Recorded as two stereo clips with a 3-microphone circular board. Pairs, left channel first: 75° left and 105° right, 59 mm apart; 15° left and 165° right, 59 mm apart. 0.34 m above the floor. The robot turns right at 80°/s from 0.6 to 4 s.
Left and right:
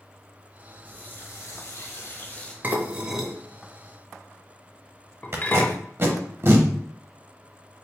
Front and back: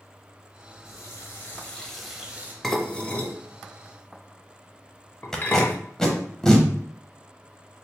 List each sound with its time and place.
0.8 s a running tap: 10° left, 0.9 m; by 2.5 s 150° left, 0.9 m
2.6 s dishes clattering: 65° right, 0.6 m; by 5.8 s 40° left, 0.6 m
5.3 s tape being pulled: 60° right, 0.8 m